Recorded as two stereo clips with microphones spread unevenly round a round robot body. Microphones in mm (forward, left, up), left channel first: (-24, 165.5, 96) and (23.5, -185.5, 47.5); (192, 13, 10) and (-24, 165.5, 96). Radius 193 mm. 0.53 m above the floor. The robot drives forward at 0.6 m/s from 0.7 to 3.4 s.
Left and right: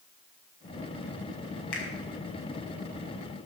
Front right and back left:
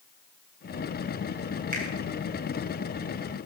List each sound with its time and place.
1.7 s a finger snap: 80° left, 3.5 m; by 1.9 s 85° left, 3.5 m